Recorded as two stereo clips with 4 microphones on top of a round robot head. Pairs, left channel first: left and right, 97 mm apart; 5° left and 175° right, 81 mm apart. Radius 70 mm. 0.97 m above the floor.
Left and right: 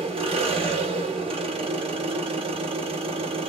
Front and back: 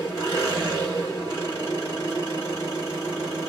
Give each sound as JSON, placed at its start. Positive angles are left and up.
{"t": 0.0, "sound": "an engine running", "azimuth_deg": -60, "distance_m": 1.2}